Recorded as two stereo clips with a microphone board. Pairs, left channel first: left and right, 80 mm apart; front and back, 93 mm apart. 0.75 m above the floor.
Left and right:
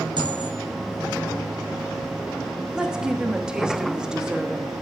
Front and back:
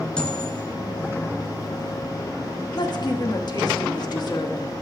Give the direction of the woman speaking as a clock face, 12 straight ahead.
12 o'clock.